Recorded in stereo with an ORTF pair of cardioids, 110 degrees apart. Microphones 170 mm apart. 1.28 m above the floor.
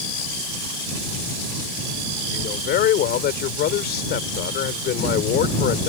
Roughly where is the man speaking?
Ahead left.